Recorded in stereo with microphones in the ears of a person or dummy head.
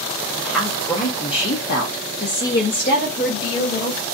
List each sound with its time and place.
0.4 s a woman speaking: centre (ahead or behind), 0.8 m; by 4.0 s 45° left (ahead or behind), 1.4 m